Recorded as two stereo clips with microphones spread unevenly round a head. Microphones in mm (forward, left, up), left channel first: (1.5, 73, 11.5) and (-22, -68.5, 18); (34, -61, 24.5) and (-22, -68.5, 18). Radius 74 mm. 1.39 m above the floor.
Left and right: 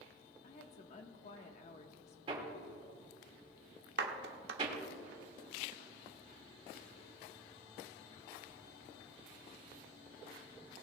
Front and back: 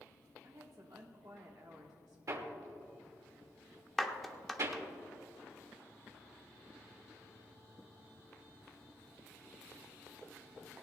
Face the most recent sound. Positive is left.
turn(degrees=-80)